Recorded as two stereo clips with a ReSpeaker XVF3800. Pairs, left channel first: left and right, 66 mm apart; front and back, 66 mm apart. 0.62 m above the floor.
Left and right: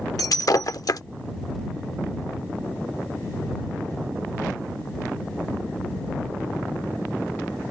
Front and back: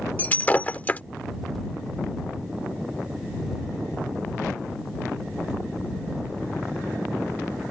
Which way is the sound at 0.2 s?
65° left.